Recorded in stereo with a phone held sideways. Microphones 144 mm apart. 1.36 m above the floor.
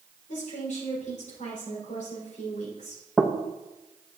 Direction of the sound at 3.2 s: Centre (ahead or behind).